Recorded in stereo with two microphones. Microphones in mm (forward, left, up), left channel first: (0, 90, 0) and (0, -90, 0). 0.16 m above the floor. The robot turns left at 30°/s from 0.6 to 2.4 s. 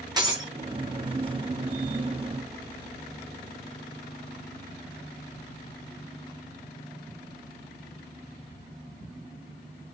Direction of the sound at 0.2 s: 20° right (ahead or behind).